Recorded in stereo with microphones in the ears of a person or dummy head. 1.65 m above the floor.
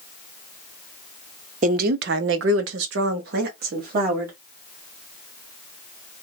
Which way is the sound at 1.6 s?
50° right (ahead or behind).